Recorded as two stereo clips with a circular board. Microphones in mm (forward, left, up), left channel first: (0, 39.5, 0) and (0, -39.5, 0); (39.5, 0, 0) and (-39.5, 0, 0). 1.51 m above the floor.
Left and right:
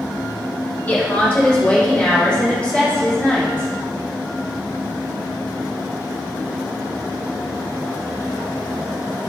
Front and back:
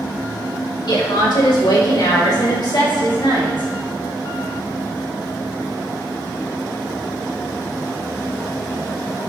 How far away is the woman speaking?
About 2.5 m.